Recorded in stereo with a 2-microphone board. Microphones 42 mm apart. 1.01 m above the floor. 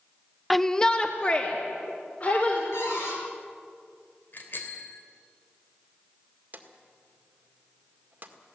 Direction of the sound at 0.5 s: Centre (ahead or behind).